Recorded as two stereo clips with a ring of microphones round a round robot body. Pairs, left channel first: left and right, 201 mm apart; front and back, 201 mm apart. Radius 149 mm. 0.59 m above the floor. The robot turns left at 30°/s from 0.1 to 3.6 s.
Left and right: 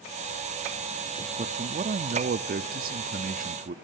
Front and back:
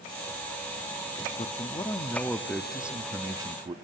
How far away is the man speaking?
About 0.8 m.